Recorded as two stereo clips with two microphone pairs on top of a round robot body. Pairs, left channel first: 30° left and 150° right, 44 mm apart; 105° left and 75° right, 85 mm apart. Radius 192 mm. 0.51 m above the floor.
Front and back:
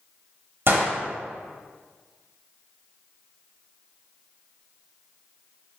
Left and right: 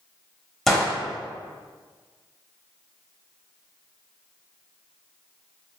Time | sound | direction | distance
0.7 | a gunshot | 160° right | 1.2 m